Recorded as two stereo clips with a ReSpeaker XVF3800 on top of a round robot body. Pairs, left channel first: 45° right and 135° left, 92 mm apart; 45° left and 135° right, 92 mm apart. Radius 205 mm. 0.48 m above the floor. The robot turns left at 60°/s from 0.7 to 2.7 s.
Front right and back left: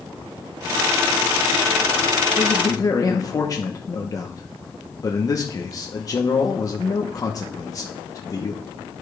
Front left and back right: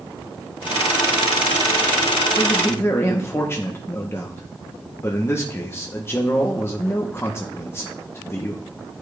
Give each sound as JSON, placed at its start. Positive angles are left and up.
{"t": 2.4, "sound": "a man speaking", "azimuth_deg": 10, "distance_m": 1.0}